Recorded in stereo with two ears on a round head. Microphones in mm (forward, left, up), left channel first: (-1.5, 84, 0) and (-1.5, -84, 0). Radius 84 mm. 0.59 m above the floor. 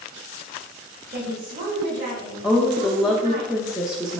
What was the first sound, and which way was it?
A woman speaking, 45° right (ahead or behind).